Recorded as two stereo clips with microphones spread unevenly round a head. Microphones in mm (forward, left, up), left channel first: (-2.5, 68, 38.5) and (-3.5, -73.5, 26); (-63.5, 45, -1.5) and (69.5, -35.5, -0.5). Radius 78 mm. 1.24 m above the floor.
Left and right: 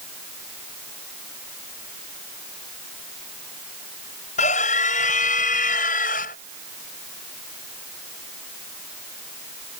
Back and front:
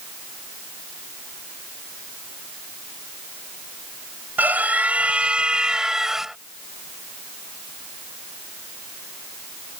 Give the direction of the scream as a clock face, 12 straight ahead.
10 o'clock.